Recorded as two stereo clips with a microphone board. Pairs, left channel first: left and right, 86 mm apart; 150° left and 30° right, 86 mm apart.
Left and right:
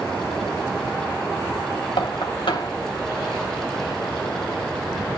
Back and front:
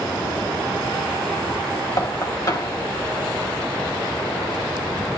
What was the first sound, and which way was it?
Knocking, 105° left.